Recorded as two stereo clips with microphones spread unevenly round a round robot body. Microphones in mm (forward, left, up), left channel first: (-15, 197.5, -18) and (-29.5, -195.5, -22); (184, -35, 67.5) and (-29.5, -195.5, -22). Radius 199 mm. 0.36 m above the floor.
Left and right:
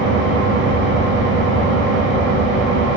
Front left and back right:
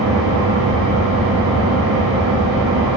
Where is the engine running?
155° right, 3 m.